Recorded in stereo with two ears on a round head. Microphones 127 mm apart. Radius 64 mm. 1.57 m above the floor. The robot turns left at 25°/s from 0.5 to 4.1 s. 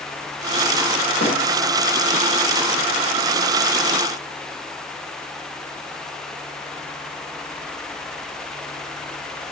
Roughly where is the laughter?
No laughter in this recording.